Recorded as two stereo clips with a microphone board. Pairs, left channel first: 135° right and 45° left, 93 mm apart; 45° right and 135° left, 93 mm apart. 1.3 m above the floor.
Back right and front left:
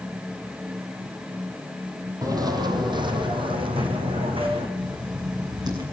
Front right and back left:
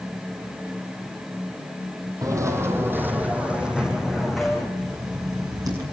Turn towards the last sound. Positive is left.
turn(degrees=85)